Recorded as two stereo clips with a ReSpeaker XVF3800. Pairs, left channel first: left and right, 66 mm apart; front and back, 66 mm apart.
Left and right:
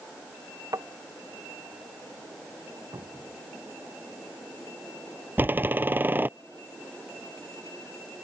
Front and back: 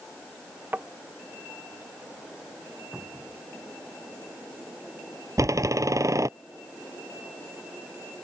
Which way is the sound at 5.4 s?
150° right.